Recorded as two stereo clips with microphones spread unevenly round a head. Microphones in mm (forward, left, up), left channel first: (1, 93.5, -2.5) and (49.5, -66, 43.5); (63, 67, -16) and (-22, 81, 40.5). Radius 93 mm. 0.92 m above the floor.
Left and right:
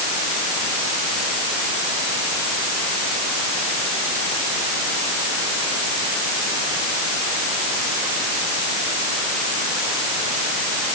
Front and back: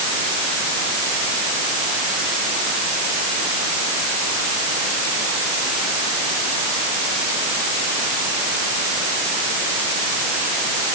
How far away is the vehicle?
I don't hear a vehicle.